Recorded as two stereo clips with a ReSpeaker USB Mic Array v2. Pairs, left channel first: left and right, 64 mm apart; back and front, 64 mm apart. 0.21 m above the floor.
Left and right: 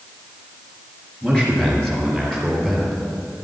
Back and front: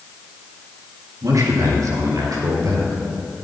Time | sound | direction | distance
1.2 | a man speaking | 15° left | 3 m